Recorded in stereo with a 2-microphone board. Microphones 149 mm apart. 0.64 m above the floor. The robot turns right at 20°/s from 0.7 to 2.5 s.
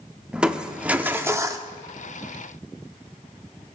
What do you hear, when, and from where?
0.3 s crushing: 5° right (ahead or behind), 0.6 m; by 1.7 s 25° right (ahead or behind), 0.6 m